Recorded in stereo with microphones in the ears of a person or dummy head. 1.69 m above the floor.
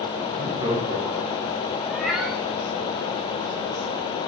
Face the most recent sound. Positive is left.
turn(degrees=0)  # may be behind; listen again after turning